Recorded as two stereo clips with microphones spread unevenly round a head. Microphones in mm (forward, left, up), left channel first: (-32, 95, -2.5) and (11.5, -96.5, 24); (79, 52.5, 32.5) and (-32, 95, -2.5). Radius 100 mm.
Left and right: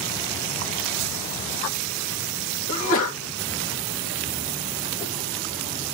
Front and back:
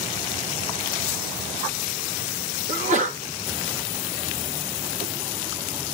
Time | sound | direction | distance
2.7 | a sneeze | 130° left | 2.5 m